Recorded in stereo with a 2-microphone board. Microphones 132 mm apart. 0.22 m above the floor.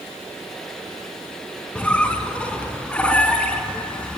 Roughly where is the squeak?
Centre.